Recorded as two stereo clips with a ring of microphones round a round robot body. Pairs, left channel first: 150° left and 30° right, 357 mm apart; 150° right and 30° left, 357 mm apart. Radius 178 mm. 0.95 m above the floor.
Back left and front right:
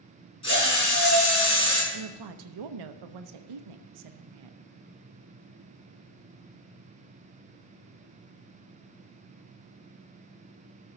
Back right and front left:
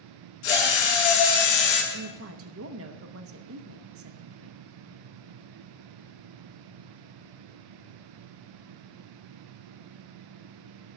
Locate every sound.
0.4 s a drill: 135° right, 5.5 m
1.9 s a woman speaking: 20° right, 0.7 m